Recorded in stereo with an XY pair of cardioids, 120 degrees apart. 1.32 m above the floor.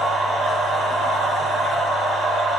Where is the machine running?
35° right, 1.6 m.